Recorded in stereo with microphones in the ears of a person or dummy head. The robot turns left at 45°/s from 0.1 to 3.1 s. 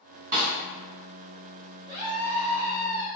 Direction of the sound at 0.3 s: 45° right (ahead or behind).